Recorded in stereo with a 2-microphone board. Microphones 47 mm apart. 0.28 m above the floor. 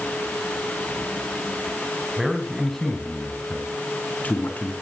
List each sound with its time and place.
2.2 s a man speaking: 10° right (ahead or behind), 2.5 m; by 4.7 s 40° left (ahead or behind), 4.5 m